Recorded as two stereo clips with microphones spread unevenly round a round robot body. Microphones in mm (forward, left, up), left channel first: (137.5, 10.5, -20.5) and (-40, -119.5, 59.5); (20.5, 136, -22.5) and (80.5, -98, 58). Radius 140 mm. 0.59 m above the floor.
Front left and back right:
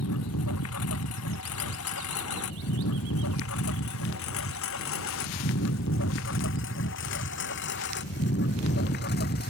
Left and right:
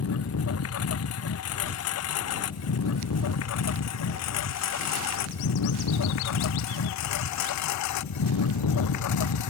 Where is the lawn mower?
70° left; by 9.5 s 95° left.